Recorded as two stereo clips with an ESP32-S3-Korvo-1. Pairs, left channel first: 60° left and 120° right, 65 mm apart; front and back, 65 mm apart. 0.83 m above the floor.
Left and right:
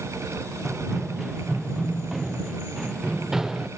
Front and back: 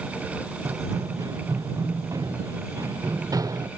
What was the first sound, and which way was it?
Running footsteps, 150° left.